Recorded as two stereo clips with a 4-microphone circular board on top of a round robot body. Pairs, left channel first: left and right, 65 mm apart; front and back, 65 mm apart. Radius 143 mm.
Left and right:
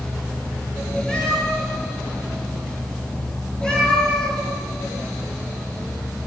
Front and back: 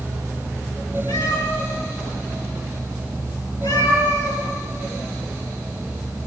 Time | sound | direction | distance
1.1 | a cat meowing | 5° left | 8.5 m